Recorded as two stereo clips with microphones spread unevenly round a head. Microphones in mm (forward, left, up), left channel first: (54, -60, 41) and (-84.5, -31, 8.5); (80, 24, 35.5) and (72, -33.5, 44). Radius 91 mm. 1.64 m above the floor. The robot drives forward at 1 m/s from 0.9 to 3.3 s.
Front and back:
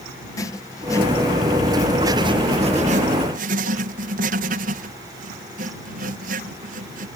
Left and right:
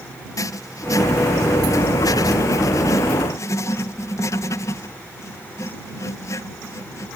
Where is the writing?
60° left; by 7.1 s 130° left.